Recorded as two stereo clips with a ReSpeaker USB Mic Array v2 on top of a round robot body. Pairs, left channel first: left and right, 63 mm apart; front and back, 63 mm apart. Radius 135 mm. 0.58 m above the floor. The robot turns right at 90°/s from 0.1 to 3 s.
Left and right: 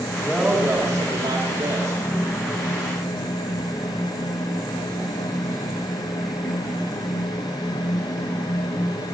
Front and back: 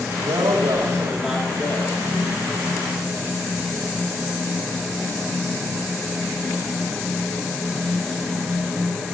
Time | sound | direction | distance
0.2 | a woman speaking | 175° left | 2.5 m